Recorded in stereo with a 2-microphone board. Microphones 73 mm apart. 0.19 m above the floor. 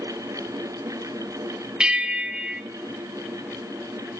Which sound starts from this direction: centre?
A bell, at 1.8 s.